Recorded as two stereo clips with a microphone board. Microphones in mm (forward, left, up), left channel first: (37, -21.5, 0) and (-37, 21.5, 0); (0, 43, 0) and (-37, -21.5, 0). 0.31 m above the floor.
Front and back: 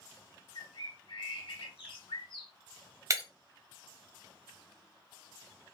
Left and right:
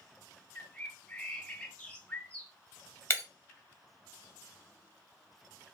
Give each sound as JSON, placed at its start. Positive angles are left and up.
{"t": 0.6, "sound": "a bird", "azimuth_deg": -15, "distance_m": 0.6}
{"t": 3.1, "sound": "breaking glass", "azimuth_deg": 105, "distance_m": 0.7}